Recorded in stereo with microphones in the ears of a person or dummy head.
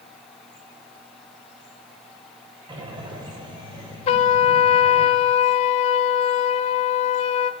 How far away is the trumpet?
About 0.8 m.